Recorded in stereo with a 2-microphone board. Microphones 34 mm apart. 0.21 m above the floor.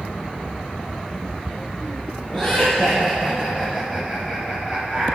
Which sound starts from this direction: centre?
Laughter, at 2.3 s.